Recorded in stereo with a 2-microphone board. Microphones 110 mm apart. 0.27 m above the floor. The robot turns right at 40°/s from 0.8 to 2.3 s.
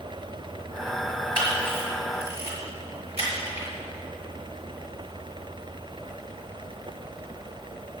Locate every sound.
1.4 s a camera shutter: 45° right (ahead or behind), 4.5 m; by 3.7 s 75° right (ahead or behind), 4.5 m